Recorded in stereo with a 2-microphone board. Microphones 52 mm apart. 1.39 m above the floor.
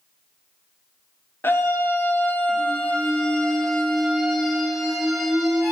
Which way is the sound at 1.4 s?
50° left (ahead or behind).